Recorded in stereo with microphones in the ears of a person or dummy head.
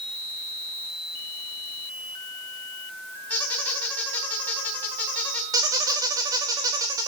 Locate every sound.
3.3 s a squeak: 10° left (ahead or behind), 3.5 m
5.5 s a squeak: 20° right (ahead or behind), 2.0 m